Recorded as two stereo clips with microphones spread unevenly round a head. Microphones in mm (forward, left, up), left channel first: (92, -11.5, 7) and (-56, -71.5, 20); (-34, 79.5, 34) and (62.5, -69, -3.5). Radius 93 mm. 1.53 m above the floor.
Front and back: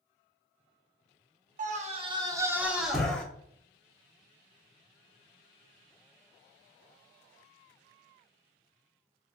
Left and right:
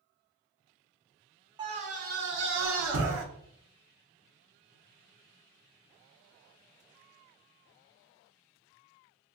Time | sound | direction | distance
1.6 | a scream | 130° right | 0.8 m